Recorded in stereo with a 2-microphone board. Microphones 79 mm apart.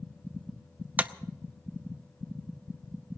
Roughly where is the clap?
Centre.